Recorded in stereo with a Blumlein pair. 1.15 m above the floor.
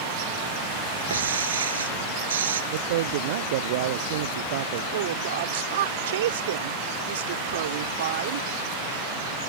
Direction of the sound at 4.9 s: 60° right.